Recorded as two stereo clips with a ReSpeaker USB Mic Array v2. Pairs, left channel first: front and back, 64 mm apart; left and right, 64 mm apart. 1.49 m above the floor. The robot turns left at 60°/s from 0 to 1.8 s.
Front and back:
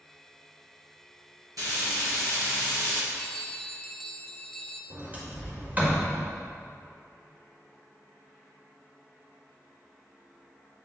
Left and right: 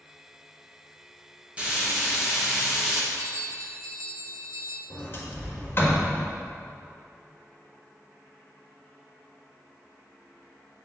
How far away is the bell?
About 0.5 m.